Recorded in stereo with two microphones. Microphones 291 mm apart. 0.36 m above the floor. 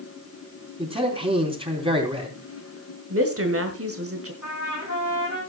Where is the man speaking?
20° right (ahead or behind), 3.5 m.